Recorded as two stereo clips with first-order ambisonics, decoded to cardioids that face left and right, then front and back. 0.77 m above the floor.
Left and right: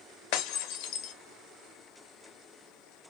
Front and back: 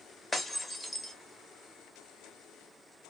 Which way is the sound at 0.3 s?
75° left.